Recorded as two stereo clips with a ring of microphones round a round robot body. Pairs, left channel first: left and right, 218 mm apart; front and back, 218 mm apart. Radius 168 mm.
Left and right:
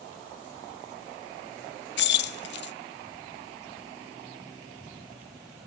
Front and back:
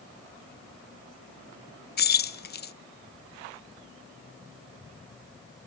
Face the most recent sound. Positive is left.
turn(degrees=50)